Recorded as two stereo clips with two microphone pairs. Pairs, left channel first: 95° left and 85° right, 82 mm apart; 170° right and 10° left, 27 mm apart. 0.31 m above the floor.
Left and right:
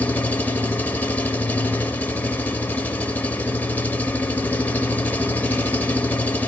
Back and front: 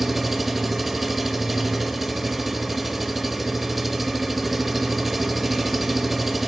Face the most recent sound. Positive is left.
turn(degrees=80)